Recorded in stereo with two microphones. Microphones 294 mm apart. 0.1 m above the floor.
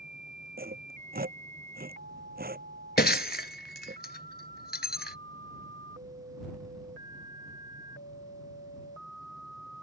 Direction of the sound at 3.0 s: 35° left (ahead or behind).